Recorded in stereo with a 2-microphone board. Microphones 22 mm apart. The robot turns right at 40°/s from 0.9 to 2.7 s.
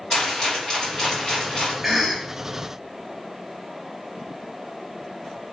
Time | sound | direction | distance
0.1 | a rattle | 35° left | 1.9 m
1.8 | a cough | 5° right (ahead or behind) | 1.0 m